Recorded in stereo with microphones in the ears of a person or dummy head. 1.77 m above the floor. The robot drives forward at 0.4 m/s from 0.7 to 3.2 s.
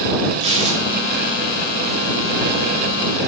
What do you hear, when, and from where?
0.4 s tearing paper: 30° right (ahead or behind), 1.1 m; by 1.2 s 25° right (ahead or behind), 1.3 m